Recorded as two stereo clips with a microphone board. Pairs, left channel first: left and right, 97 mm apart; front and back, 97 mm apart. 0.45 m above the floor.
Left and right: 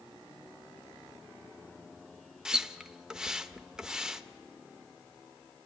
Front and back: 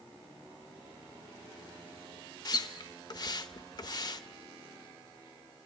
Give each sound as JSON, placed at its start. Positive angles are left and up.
{"t": 2.5, "sound": "a splash", "azimuth_deg": -10, "distance_m": 0.7}